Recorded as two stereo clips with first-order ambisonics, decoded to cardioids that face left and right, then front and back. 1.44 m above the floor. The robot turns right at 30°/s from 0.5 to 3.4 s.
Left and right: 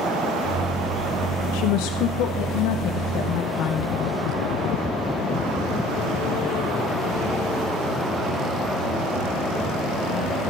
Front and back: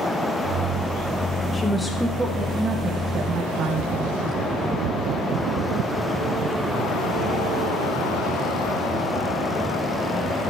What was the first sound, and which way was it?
A woman speaking, 75° left.